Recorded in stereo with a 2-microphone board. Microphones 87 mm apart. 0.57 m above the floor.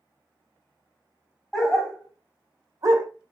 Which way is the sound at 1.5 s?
Centre (ahead or behind).